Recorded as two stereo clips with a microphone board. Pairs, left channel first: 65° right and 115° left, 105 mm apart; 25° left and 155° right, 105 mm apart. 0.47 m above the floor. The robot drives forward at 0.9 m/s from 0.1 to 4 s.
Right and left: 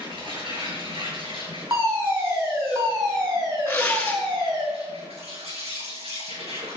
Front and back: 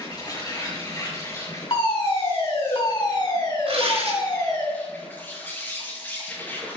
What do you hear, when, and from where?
0.0 s an insect: 75° left, 8.5 m; by 6.8 s 95° left, 8.5 m
1.7 s a fire alarm: 50° left, 7 m; by 4.7 s 70° left, 6 m
3.7 s tearing paper: 140° right, 5.5 m; by 4.2 s 145° right, 5.5 m